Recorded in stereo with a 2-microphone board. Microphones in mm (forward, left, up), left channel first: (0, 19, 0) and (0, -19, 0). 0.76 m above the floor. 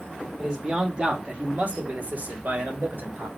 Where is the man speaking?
15° right (ahead or behind), 1.5 m; by 3.3 s 55° right (ahead or behind), 1.5 m.